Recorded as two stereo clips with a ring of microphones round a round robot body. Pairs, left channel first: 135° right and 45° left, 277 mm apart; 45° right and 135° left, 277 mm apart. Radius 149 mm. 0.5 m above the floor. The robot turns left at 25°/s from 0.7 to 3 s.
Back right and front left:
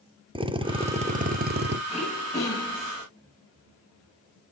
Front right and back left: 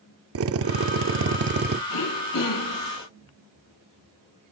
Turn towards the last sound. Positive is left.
turn(degrees=-70)